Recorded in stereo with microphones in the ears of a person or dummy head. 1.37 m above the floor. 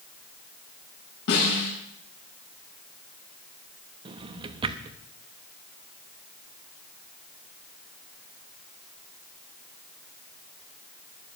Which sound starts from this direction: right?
A drawer, at 4.0 s.